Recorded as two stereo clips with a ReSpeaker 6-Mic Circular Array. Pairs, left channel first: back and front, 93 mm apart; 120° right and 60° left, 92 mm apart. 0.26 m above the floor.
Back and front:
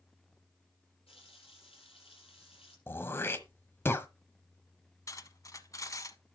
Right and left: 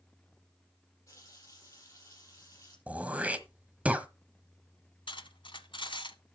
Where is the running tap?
175° right, 6 m.